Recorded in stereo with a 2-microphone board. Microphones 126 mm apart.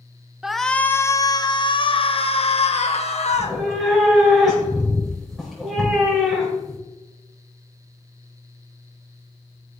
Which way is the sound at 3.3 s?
Centre (ahead or behind).